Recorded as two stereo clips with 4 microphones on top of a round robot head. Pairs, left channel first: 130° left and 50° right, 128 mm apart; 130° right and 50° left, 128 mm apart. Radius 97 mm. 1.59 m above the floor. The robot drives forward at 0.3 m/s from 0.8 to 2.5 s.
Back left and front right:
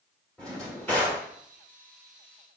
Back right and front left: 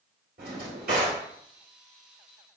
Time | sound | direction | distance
0.4 | a drawer | 45° left | 1.9 m